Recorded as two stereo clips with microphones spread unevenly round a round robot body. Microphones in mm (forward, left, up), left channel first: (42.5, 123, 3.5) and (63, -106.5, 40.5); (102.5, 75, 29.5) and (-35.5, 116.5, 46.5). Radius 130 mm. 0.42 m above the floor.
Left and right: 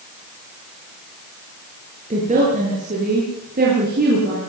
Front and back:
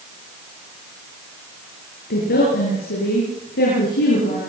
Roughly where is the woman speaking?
Ahead right.